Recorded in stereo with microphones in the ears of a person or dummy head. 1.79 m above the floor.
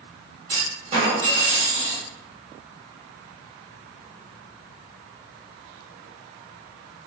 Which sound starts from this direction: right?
A clunk, at 0.5 s.